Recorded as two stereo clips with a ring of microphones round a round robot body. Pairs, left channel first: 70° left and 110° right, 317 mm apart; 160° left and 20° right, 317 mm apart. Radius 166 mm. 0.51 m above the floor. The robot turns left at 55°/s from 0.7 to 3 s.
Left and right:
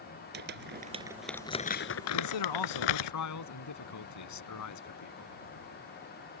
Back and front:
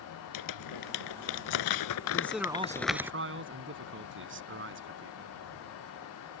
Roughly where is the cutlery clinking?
I don't hear cutlery clinking.